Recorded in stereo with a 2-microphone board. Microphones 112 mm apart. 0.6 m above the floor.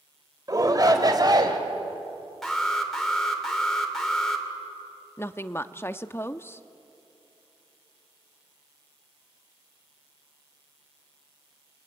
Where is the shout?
35° right (ahead or behind), 2.5 m; by 1.6 s 40° right (ahead or behind), 3 m.